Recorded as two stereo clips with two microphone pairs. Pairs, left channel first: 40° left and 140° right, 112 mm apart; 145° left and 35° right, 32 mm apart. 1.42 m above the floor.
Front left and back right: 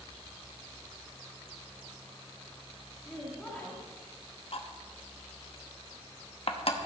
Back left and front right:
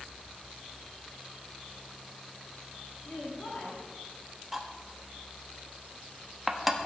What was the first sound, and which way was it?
A woman speaking, 120° left.